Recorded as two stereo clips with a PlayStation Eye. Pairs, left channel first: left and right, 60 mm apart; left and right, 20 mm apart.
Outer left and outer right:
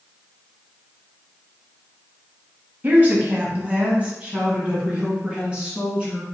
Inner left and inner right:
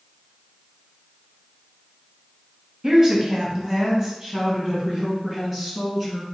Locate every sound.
2.8 s a woman speaking: 30° right (ahead or behind), 1.2 m; by 6.2 s 15° right (ahead or behind), 2.5 m